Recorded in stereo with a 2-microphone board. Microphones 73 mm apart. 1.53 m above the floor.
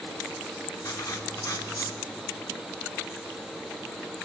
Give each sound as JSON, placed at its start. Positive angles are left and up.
{"t": 0.8, "sound": "writing", "side_deg": 50, "distance_m": 2.5}